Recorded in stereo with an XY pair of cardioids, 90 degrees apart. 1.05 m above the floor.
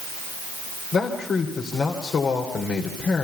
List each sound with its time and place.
0.9 s a man speaking: 65° left, 3 m